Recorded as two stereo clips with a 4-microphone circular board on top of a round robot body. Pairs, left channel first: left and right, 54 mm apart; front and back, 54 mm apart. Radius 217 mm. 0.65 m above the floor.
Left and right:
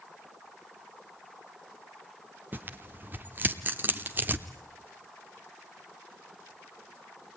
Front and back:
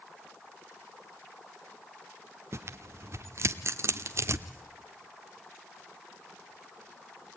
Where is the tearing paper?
145° right, 0.6 m.